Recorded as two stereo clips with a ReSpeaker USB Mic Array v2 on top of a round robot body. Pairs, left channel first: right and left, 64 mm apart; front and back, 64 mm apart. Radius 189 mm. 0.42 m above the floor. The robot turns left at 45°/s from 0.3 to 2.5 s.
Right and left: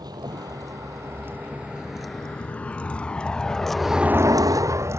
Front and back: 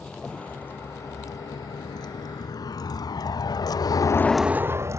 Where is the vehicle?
75° left; by 5.0 s 140° left.